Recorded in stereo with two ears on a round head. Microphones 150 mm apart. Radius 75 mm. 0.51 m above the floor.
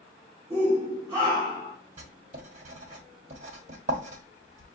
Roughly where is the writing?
Right.